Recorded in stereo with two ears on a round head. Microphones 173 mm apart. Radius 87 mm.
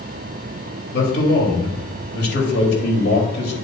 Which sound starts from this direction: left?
A man speaking, at 0.9 s.